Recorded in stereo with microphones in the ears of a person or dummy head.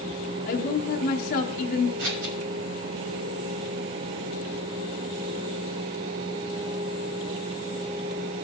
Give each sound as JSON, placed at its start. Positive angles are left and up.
{"t": 0.5, "sound": "a woman speaking", "side_deg": 55, "distance_m": 1.0}
{"t": 2.0, "sound": "scissors", "side_deg": -55, "distance_m": 2.5}